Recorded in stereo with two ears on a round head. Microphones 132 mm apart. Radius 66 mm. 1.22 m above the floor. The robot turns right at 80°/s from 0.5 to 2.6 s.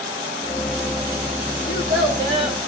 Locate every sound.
1.7 s a child speaking: 100° right, 6 m; by 2.6 s 25° right, 6 m